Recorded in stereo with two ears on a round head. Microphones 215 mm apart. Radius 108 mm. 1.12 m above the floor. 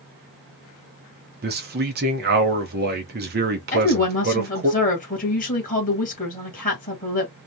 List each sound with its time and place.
1.4 s a man speaking: 40° right (ahead or behind), 0.9 m
3.7 s a woman speaking: 30° left (ahead or behind), 1.5 m